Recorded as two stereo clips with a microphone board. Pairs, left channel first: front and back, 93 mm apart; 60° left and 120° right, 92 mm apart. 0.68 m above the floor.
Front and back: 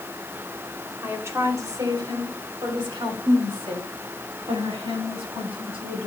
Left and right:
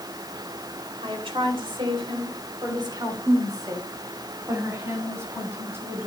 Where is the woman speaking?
115° right, 2.5 m; by 6.1 s 175° left, 6.5 m.